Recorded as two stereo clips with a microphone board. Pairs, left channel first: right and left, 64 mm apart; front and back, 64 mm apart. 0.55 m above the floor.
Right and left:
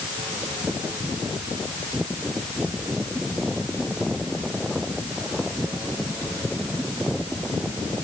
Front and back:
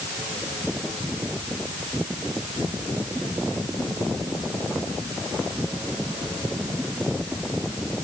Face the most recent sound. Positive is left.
No sound to turn to.